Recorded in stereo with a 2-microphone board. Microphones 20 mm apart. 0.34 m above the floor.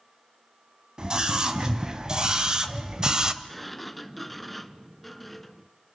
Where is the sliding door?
5° left (ahead or behind), 1.1 m.